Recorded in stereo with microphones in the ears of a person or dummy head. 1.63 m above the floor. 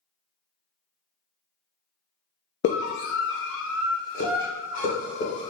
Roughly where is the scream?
Left.